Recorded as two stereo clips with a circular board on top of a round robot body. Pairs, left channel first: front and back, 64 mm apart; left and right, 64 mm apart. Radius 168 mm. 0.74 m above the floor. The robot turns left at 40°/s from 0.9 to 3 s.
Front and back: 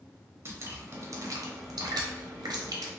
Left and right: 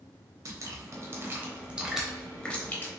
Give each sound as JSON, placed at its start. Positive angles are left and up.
{"t": 0.5, "sound": "dripping", "azimuth_deg": -130, "distance_m": 0.8}